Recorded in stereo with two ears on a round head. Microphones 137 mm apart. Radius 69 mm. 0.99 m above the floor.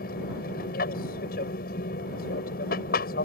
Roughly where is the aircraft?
Left.